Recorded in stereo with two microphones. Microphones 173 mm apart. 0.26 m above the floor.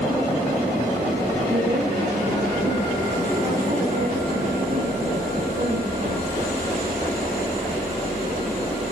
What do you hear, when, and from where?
1.5 s a woman speaking: 40° right (ahead or behind), 8 m; by 6.3 s 55° right (ahead or behind), 12.5 m